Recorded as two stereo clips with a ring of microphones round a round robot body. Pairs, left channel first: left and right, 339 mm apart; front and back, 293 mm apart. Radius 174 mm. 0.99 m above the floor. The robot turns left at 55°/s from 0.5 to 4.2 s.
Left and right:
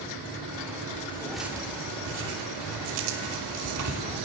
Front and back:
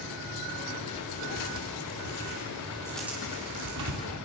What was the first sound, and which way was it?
Tearing paper, 25° left.